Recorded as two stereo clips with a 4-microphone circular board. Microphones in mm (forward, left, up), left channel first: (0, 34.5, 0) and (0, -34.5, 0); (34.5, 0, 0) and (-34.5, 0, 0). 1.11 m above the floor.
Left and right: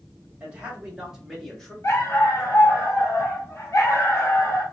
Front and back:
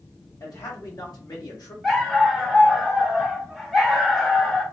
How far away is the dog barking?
About 0.9 m.